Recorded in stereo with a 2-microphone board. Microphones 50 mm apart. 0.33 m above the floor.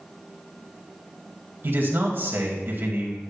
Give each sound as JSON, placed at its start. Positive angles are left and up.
{"t": 1.6, "sound": "a man speaking", "side_deg": -45, "distance_m": 2.0}